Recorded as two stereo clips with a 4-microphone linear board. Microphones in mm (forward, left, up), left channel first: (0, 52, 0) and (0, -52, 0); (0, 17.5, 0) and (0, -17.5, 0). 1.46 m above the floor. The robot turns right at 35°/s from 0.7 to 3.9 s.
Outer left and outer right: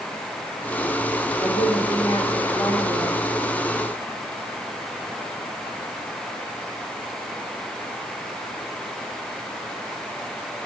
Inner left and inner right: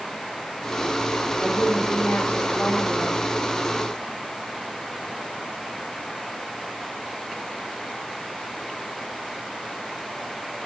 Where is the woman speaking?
40° left, 5 m; by 3.2 s 100° left, 5 m.